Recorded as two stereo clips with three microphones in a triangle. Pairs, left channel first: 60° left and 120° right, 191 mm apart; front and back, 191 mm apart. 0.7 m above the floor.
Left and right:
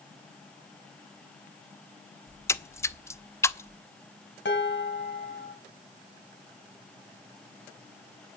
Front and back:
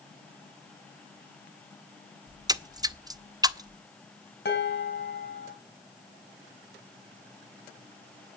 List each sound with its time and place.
2.3 s a splash: 125° left, 0.6 m
4.5 s dishes clattering: 35° left, 3.5 m